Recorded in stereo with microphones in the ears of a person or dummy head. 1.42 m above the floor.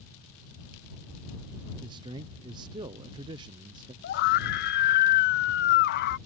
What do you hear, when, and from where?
1.8 s a man speaking: 25° right (ahead or behind)
4.0 s a scream: 55° left (ahead or behind)